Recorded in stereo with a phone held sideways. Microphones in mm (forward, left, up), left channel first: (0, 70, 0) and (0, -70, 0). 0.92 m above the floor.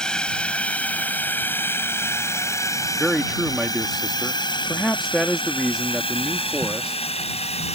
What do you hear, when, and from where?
0.0 s a drone: 5° left (ahead or behind); by 7.8 s 50° left (ahead or behind)
3.0 s a man speaking: centre (ahead or behind)